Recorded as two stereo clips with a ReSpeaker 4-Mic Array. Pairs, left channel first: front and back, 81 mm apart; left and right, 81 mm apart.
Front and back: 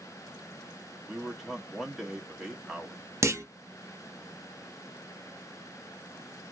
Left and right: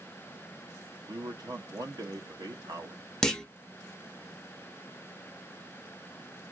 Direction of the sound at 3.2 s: 165° left.